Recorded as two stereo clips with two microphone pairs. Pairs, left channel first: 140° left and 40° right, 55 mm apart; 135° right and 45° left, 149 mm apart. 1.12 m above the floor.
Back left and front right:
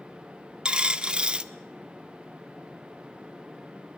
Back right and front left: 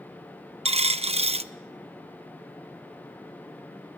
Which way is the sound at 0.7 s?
25° left.